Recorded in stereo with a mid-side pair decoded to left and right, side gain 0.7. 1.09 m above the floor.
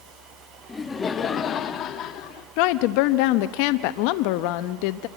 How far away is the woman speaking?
About 1.0 m.